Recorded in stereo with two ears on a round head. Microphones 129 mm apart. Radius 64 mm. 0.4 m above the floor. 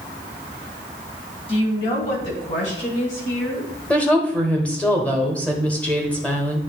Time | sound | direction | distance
1.5 | a woman speaking | 40° left (ahead or behind) | 3 m
3.9 | a woman speaking | 10° left (ahead or behind) | 1.2 m